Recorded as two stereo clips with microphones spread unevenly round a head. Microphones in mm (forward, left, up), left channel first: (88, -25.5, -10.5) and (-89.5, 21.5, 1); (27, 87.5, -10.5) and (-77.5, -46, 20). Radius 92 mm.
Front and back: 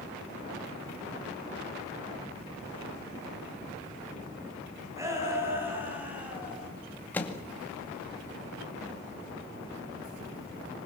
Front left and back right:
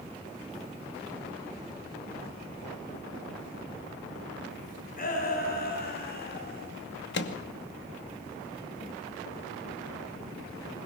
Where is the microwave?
65° left, 2.5 m.